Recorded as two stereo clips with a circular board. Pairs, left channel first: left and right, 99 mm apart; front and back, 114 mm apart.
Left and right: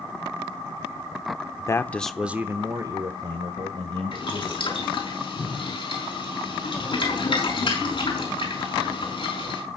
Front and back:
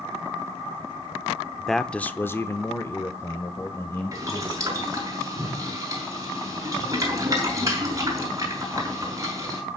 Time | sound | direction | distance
1.6 | a man speaking | 90° left | 0.8 m
4.1 | boiling | 120° left | 5 m